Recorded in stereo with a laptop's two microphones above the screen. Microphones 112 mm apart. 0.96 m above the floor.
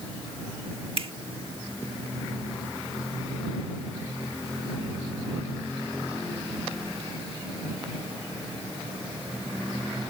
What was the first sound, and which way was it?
A finger snap, 55° right (ahead or behind).